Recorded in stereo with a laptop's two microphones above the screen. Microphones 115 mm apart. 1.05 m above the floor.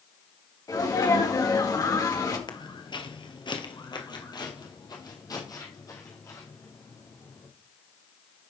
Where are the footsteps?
40° left (ahead or behind), 1.3 m; by 7.5 s 25° left (ahead or behind), 3.5 m.